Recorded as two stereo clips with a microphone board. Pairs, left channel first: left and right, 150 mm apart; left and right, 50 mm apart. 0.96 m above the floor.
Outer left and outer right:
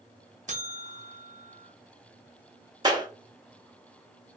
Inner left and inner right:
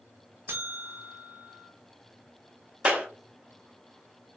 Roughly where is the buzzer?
Right.